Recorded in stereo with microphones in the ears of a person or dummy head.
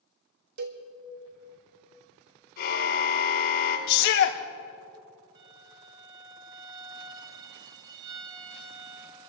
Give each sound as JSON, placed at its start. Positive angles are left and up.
{"t": 0.6, "sound": "a cowbell", "side_deg": -60, "distance_m": 1.4}
{"t": 2.6, "sound": "a car horn", "side_deg": 65, "distance_m": 5.5}
{"t": 3.9, "sound": "a shout", "side_deg": 60, "distance_m": 1.1}
{"t": 5.3, "sound": "a violin", "side_deg": -15, "distance_m": 0.6}